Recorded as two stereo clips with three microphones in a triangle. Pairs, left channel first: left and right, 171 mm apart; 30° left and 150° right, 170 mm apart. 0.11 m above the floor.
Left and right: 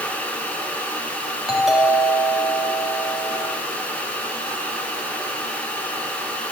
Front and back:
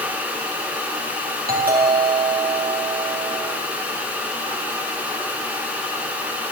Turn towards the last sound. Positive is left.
turn(degrees=-175)